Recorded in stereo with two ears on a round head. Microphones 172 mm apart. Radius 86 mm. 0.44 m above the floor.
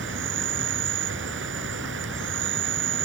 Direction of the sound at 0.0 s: 65° right (ahead or behind).